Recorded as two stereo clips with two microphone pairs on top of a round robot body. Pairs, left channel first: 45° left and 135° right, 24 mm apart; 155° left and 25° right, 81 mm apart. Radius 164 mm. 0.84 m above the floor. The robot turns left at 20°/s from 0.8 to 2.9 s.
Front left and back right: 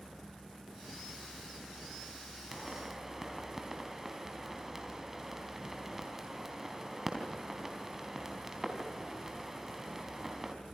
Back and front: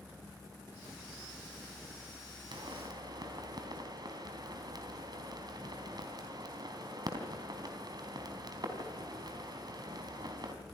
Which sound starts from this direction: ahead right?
A pop, at 2.5 s.